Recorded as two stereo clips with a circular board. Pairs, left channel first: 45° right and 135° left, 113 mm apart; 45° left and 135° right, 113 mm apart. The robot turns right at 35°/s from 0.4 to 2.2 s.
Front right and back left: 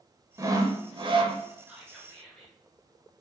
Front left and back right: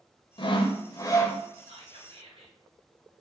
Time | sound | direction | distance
0.4 | sawing | 80° left | 0.6 m
1.7 | whispering | 145° right | 1.6 m